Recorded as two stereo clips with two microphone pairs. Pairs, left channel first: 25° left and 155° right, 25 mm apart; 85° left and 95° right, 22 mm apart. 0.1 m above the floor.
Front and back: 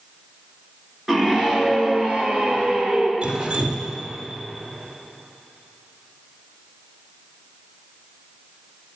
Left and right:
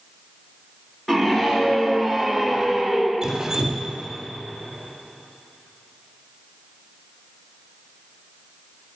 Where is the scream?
135° left, 1.5 m; by 3.1 s 175° left, 2.5 m.